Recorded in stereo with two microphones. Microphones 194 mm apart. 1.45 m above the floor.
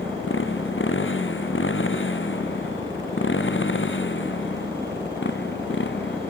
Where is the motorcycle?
85° left; by 6.3 s 70° left (ahead or behind).